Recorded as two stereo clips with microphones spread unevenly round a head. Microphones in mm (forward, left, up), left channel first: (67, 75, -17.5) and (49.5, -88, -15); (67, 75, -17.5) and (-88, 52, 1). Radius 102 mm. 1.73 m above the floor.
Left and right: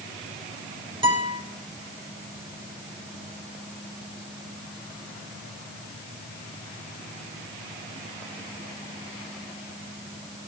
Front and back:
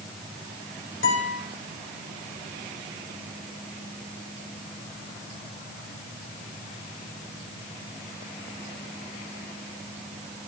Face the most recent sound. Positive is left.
turn(degrees=-40)